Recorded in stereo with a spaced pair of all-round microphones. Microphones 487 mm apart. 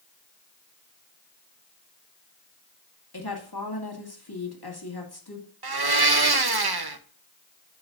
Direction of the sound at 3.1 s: 50° left (ahead or behind).